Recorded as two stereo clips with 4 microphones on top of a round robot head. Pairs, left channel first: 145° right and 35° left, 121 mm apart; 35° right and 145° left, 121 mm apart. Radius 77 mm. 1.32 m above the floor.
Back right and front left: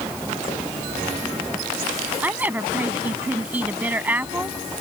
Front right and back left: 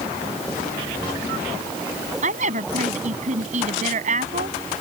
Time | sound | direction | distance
2.2 | a woman speaking | 110° left | ?